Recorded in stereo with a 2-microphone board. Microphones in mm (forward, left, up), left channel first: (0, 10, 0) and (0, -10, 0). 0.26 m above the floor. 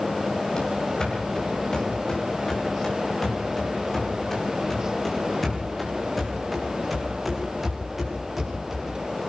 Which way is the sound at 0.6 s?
40° left (ahead or behind).